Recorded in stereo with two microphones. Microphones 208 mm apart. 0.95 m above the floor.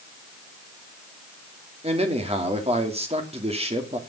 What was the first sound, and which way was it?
A man speaking, 30° right (ahead or behind).